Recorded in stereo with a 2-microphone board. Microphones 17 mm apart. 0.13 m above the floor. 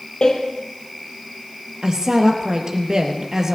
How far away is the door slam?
About 3 m.